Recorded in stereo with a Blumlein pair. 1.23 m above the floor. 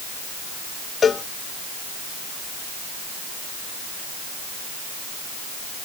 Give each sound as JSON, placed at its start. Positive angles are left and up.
{"t": 1.0, "sound": "a cowbell", "azimuth_deg": 20}